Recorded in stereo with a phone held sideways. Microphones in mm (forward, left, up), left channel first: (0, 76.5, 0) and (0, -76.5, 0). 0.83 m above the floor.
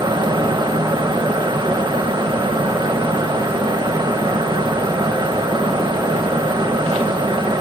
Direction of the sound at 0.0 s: 30° right (ahead or behind).